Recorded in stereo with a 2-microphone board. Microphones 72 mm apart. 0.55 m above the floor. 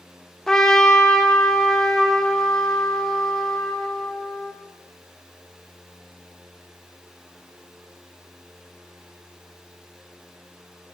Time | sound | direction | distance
0.5 | a trumpet | 5° left (ahead or behind) | 0.6 m